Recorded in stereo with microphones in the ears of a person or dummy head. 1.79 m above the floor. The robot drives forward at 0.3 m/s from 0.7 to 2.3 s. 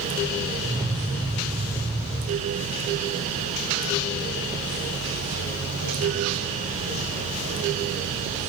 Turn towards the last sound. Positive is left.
No sound to turn to.